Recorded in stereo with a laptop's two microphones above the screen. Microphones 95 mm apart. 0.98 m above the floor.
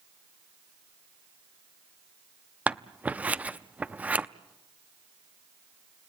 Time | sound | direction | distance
2.7 | scissors | 15° right (ahead or behind) | 0.6 m